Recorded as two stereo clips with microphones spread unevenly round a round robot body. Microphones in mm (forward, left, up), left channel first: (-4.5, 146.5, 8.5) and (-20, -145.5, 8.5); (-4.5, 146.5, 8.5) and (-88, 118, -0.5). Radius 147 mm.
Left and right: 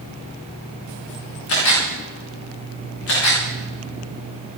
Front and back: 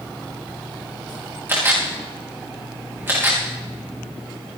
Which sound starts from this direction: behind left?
A camera shutter, at 1.5 s.